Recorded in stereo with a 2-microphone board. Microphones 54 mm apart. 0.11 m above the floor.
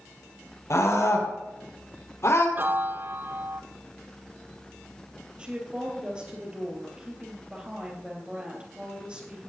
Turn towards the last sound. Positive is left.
turn(degrees=-20)  # may be behind; listen again after turning